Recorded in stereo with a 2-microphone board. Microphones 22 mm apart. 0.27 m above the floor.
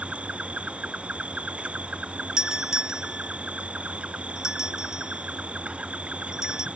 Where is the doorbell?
30° right (ahead or behind).